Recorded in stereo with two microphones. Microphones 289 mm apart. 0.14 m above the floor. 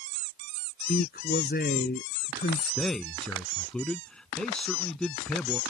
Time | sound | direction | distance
0.9 | a man speaking | 35° left (ahead or behind) | ?
2.8 | a man speaking | 5° left (ahead or behind) | ?